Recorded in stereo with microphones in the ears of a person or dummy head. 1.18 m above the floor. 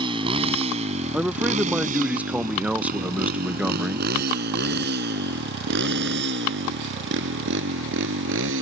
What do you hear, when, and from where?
0.0 s a motorcycle: 25° right (ahead or behind); by 8.6 s 70° right (ahead or behind)
1.1 s a man speaking: 10° right (ahead or behind)